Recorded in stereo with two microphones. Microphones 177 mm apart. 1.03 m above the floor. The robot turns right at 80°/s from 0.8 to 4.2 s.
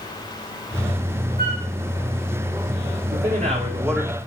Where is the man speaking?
70° right, 3 m; by 4.2 s 15° left, 3 m.